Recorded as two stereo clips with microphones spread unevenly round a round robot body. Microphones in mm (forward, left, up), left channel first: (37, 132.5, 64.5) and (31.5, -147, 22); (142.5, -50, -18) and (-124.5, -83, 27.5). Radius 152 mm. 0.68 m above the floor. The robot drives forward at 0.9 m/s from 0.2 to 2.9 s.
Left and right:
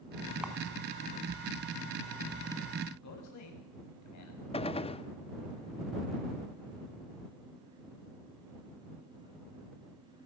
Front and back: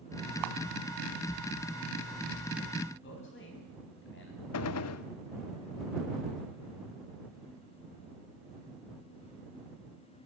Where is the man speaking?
60° left, 5 m.